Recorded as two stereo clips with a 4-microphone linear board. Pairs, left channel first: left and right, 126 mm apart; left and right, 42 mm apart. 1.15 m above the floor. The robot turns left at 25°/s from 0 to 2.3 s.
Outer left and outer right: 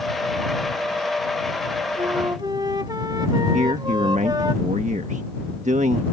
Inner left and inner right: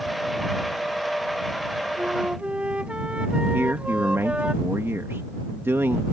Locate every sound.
2.0 s a flute: 40° right (ahead or behind); by 4.5 s 35° right (ahead or behind)
3.5 s a man speaking: 75° right (ahead or behind)